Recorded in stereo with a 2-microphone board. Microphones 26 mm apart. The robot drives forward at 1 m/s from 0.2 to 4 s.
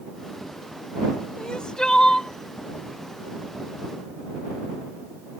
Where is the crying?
35° left (ahead or behind); by 2.3 s 25° left (ahead or behind).